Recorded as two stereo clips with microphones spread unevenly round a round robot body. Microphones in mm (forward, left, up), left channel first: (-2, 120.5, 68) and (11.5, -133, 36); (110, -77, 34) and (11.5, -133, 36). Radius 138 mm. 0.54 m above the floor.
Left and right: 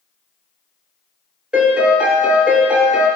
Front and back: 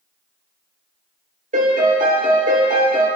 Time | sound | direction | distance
1.5 | a piano | 175° right | 1.8 m